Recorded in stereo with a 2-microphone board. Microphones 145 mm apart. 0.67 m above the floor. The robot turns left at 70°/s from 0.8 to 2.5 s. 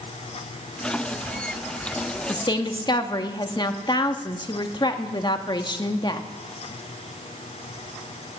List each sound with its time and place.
2.3 s a woman speaking: 25° left (ahead or behind), 1.2 m; by 6.3 s 30° left (ahead or behind), 1.2 m